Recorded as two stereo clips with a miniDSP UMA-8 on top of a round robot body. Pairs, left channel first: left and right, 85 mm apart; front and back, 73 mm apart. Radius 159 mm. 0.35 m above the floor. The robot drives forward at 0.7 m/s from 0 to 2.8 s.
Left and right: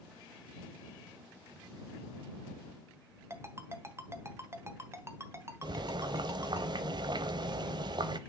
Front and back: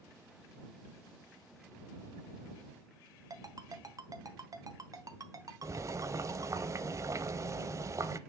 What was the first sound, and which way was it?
A ringtone, 145° right.